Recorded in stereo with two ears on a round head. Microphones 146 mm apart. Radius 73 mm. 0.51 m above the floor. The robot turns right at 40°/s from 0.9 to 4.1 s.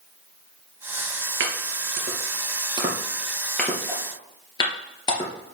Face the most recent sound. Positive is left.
turn(degrees=25)  # may be behind; listen again after turning